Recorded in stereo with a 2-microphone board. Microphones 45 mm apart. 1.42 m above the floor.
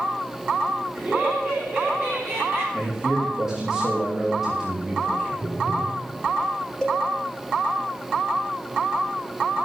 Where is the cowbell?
15° left (ahead or behind), 2 m.